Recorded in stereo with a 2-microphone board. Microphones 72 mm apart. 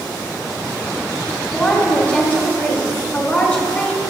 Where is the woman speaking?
15° left (ahead or behind), 2.5 m.